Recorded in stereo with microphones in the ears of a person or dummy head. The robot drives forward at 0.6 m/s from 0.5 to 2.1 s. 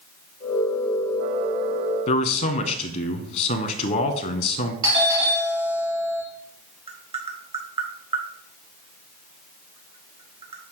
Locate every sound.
2.1 s a man speaking: 45° left (ahead or behind), 0.8 m
4.8 s a doorbell: 25° right (ahead or behind), 1.9 m
6.9 s tapping: 35° right (ahead or behind), 0.8 m